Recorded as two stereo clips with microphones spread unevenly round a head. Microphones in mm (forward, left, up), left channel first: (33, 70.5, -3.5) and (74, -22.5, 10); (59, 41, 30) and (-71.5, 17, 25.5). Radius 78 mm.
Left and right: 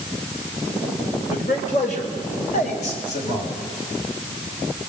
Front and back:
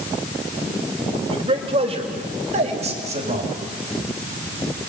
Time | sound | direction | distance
1.3 | a man speaking | 145° left | 4 m